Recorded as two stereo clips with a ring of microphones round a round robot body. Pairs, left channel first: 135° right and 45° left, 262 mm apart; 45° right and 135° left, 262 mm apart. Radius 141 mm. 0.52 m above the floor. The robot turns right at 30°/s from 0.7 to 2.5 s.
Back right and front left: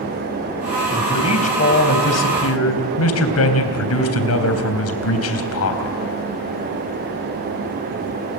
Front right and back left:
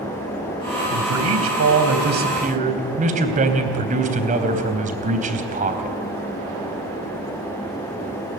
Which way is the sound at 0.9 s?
145° left.